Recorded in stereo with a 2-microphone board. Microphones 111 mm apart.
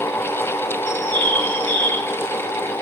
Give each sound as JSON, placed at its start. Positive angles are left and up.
{"t": 0.9, "sound": "a bird", "side_deg": -45, "distance_m": 1.6}